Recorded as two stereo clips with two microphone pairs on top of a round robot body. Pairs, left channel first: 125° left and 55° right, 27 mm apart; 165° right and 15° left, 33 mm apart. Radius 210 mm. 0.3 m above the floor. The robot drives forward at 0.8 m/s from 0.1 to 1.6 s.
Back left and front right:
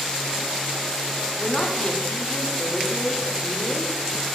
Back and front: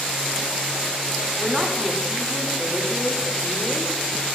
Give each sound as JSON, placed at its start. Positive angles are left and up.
{"t": 1.4, "sound": "a man speaking", "azimuth_deg": 80, "distance_m": 1.8}